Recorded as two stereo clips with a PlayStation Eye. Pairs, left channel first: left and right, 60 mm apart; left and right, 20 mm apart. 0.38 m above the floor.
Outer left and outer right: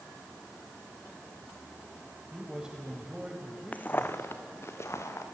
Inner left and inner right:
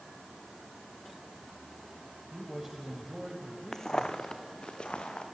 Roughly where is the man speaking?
Centre.